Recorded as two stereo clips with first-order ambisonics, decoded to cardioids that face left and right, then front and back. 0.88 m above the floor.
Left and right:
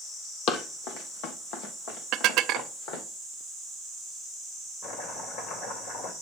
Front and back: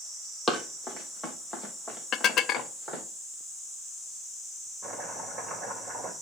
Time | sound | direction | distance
0.5 | running footsteps | 80° left | 1.4 m
2.1 | dishes clattering | 50° right | 0.5 m
4.8 | chopping | 110° left | 2.5 m